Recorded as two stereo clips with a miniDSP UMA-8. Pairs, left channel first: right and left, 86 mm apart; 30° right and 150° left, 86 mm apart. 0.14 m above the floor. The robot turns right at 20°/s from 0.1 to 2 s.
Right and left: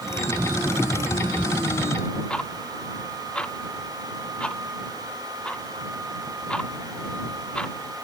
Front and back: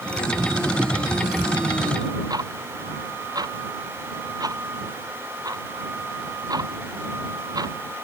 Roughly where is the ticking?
Behind.